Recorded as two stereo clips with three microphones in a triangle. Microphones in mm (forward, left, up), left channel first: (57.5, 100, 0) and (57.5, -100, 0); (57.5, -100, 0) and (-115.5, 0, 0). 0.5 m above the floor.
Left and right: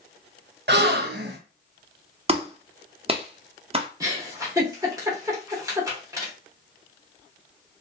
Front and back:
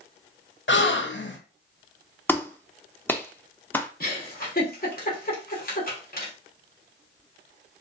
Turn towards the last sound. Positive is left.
turn(degrees=-25)